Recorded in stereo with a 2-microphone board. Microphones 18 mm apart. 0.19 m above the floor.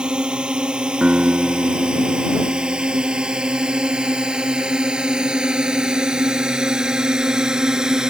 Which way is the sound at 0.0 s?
75° right (ahead or behind).